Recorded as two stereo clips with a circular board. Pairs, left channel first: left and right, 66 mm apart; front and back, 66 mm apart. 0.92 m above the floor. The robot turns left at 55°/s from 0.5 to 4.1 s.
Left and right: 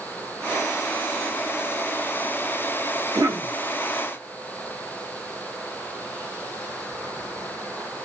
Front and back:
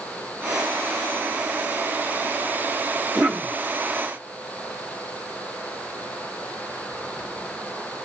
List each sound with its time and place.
3.1 s a cough: 100° right, 1.6 m; by 3.5 s 125° right, 1.6 m